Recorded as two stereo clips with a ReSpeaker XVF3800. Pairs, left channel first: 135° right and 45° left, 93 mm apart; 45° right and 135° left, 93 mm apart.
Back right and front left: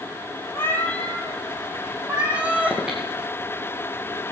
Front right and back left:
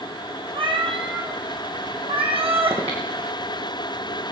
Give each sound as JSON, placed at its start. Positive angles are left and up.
{"t": 0.5, "sound": "a cat meowing", "azimuth_deg": 160, "distance_m": 1.5}
{"t": 2.7, "sound": "breathing", "azimuth_deg": 125, "distance_m": 3.0}